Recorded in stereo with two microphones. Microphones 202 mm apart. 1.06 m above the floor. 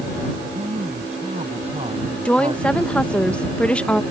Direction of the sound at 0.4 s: 35° right (ahead or behind).